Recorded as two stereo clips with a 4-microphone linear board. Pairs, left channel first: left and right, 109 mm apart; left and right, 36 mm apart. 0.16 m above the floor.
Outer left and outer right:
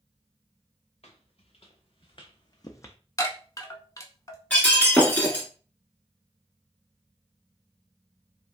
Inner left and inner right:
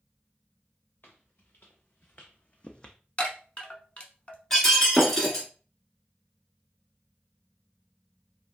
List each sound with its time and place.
1.0 s footsteps: 60° left (ahead or behind), 1.5 m; by 3.0 s 20° left (ahead or behind), 0.5 m
3.2 s a chime: 30° left (ahead or behind), 0.7 m
4.5 s breaking glass: 15° left (ahead or behind), 1.4 m